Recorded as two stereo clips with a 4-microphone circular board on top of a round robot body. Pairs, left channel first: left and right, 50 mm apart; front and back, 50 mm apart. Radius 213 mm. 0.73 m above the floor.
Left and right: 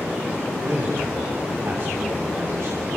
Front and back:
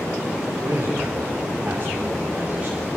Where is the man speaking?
140° right, 4 m; by 2.9 s 110° right, 3.5 m.